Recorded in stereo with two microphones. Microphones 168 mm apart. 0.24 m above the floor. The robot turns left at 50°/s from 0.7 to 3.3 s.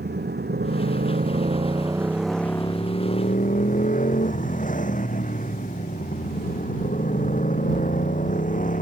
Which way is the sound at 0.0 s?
100° right.